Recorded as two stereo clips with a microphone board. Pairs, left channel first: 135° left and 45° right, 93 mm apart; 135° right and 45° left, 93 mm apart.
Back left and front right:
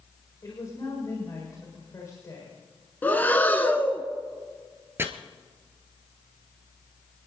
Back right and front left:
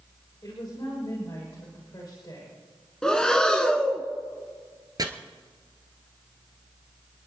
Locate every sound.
0.4 s a woman speaking: 175° right, 6 m
3.0 s breathing: 155° left, 1.2 m
5.0 s chopping: 15° left, 1.4 m